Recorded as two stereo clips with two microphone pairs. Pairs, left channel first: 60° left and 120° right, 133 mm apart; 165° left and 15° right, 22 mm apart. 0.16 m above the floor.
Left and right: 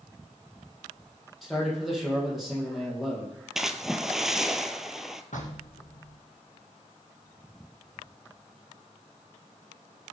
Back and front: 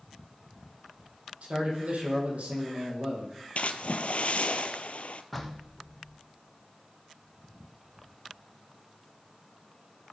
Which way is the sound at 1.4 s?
30° right.